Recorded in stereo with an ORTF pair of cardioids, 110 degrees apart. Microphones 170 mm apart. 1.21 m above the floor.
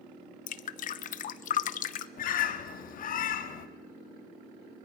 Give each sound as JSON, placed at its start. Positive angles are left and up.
{"t": 0.5, "sound": "dripping", "azimuth_deg": 55, "distance_m": 0.8}
{"t": 2.2, "sound": "a bird", "azimuth_deg": 55, "distance_m": 1.4}